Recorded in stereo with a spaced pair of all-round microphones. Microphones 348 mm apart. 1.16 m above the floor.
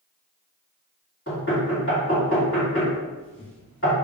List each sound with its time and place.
1.3 s knocking: 35° left (ahead or behind), 2.0 m